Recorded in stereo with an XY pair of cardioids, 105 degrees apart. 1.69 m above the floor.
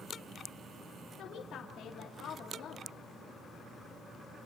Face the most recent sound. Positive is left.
turn(degrees=65)